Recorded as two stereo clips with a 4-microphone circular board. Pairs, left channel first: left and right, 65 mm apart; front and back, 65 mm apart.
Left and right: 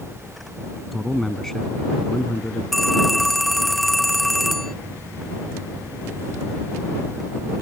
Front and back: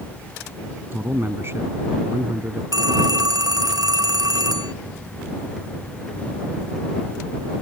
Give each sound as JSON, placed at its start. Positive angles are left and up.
{"t": 0.9, "sound": "a man speaking", "azimuth_deg": 175}
{"t": 2.7, "sound": "a phone ringing", "azimuth_deg": 175}